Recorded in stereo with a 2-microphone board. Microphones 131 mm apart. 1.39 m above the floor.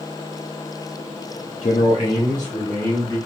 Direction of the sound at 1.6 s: 50° left (ahead or behind).